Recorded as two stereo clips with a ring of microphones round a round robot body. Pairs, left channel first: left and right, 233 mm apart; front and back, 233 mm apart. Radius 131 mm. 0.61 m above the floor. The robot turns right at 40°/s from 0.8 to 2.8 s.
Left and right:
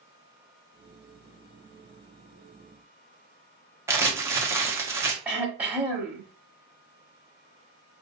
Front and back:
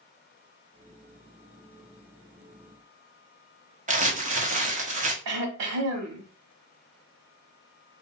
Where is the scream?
No scream in this recording.